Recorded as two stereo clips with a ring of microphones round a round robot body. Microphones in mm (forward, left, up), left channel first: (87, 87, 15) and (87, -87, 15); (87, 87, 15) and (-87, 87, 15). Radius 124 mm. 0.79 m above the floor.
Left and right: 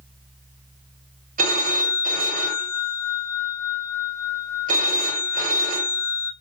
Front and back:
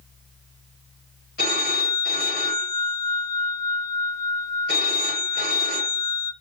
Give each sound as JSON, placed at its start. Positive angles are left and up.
{"t": 1.4, "sound": "a phone ringing", "azimuth_deg": -55, "distance_m": 2.5}